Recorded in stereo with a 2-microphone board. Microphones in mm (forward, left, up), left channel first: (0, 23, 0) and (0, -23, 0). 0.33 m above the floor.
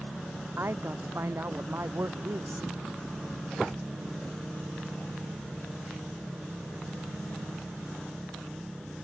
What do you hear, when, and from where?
0.6 s a man speaking: 60° right (ahead or behind); by 2.7 s 65° right (ahead or behind)